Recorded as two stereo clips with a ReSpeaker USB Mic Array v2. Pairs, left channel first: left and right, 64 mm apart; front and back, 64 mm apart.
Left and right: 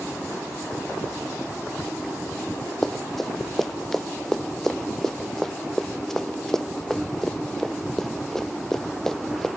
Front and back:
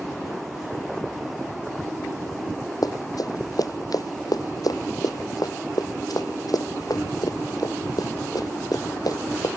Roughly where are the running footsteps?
Ahead.